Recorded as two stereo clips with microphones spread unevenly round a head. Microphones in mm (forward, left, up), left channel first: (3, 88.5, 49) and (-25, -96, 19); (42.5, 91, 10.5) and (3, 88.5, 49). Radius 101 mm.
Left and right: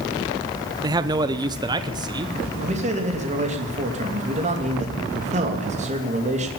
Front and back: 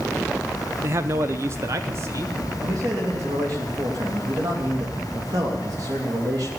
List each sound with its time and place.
0.8 s a man speaking: 170° right, 0.5 m; by 2.4 s 165° right, 1.3 m
2.6 s a man speaking: 150° right, 3 m